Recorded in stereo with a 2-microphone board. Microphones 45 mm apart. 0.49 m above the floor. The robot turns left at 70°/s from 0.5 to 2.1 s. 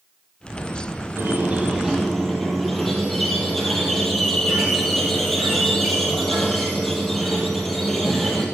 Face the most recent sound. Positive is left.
turn(degrees=175)